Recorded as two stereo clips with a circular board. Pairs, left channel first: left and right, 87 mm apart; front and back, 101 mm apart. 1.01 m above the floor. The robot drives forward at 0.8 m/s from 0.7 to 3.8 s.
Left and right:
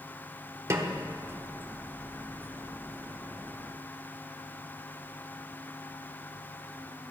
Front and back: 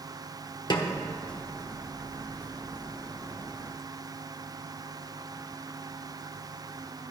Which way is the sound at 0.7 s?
35° right.